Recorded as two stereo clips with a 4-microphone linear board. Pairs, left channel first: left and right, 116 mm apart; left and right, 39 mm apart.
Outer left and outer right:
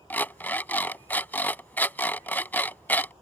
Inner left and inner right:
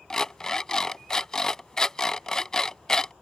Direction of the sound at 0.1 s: 15° left (ahead or behind).